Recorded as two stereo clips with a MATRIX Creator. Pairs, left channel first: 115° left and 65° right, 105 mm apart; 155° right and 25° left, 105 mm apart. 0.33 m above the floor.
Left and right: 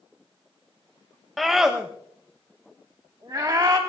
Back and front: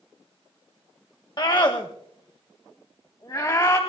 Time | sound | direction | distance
1.4 | a scream | 155° right | 1.3 m